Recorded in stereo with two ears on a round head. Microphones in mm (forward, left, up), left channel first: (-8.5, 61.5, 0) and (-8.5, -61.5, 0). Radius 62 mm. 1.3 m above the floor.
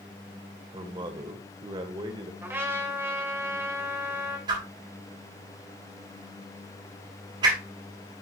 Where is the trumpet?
15° right (ahead or behind), 2.5 m.